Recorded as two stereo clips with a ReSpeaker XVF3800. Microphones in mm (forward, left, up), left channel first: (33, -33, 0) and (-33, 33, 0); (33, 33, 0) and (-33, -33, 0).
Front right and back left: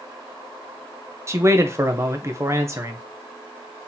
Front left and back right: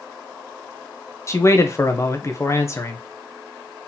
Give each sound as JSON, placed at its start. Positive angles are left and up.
{"t": 1.3, "sound": "a man speaking", "azimuth_deg": 90, "distance_m": 0.7}